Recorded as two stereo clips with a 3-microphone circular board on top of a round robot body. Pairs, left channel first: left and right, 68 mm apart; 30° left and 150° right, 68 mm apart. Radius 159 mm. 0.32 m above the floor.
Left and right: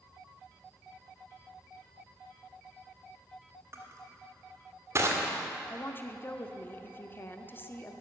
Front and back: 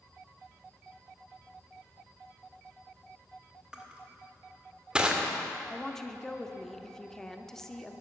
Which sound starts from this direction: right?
Crushing, at 3.7 s.